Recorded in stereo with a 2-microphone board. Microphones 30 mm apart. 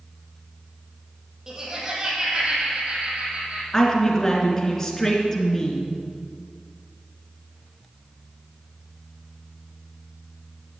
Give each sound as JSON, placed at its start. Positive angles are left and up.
{"t": 1.5, "sound": "laughter", "side_deg": -25, "distance_m": 4.0}
{"t": 3.7, "sound": "a woman speaking", "side_deg": 15, "distance_m": 1.8}